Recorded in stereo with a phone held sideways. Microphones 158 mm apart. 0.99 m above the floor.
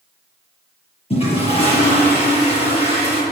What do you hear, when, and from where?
1.1 s a toilet flushing: 35° left (ahead or behind), 8 m